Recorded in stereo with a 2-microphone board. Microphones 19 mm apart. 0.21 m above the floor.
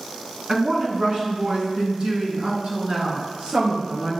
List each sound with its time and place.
0.5 s a woman speaking: 40° right (ahead or behind), 2.5 m; by 4.2 s 65° right (ahead or behind), 4 m